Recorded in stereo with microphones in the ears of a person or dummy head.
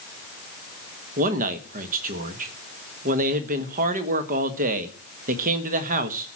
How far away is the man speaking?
About 1.3 m.